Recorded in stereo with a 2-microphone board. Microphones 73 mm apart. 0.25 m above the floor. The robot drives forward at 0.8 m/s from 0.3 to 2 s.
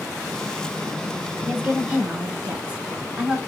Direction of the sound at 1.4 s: 15° right (ahead or behind).